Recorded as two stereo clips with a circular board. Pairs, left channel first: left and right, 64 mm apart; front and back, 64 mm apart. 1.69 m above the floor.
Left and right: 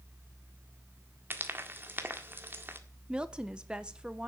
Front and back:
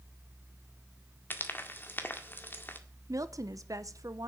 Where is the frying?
50° right, 1.7 m.